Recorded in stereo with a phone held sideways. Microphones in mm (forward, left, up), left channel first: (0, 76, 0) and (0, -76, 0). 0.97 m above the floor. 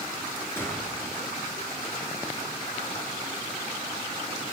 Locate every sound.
0.6 s a gunshot: 15° left (ahead or behind), 7 m